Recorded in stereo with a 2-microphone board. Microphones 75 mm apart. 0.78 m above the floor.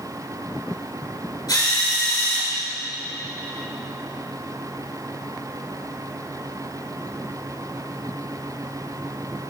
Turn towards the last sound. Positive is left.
turn(degrees=90)